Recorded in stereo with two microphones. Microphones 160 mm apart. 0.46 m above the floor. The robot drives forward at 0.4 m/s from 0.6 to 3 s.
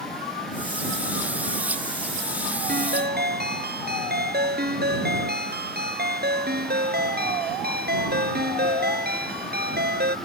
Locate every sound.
2.7 s a ringtone: 70° right (ahead or behind)